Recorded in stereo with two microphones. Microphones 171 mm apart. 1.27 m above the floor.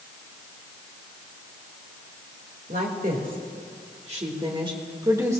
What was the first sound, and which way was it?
A woman speaking, 55° right (ahead or behind).